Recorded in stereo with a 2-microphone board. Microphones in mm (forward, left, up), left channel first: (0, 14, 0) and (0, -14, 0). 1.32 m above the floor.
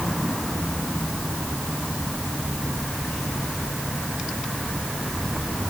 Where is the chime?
No chime in this recording.